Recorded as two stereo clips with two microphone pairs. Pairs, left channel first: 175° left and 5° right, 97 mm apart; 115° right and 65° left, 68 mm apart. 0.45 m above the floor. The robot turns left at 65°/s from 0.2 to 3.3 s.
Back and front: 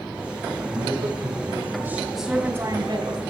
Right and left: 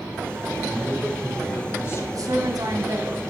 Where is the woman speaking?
85° left, 3 m; by 3.3 s 10° left, 3 m.